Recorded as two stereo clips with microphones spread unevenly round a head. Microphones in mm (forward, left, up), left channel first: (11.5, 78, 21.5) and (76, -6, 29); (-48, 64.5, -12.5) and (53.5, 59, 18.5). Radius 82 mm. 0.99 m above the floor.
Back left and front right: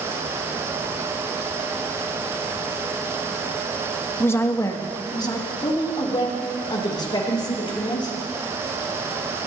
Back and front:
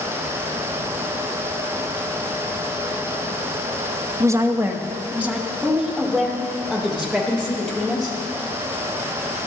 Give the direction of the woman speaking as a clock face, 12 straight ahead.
10 o'clock.